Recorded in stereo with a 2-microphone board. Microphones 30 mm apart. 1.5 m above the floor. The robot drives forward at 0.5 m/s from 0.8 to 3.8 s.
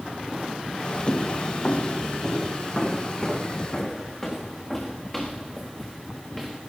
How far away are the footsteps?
About 3 m.